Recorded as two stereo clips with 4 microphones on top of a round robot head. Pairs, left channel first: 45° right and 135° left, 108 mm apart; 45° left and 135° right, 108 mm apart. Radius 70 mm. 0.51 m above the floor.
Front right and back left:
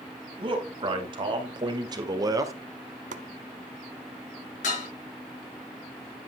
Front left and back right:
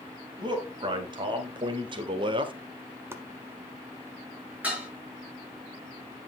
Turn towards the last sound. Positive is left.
turn(degrees=-55)